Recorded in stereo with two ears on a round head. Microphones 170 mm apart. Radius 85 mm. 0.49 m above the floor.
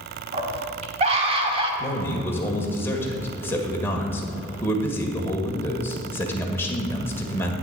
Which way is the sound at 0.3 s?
35° right (ahead or behind).